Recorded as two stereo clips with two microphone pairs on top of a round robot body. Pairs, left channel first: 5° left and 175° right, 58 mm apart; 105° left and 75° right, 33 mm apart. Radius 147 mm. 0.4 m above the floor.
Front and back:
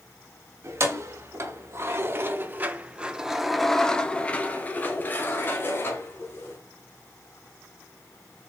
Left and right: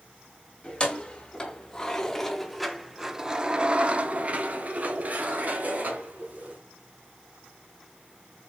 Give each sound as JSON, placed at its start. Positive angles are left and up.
{"t": 0.6, "sound": "keys jangling", "azimuth_deg": 165, "distance_m": 1.5}